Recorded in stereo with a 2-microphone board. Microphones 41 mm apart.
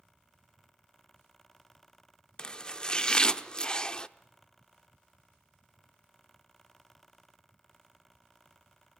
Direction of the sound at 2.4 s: 25° left (ahead or behind).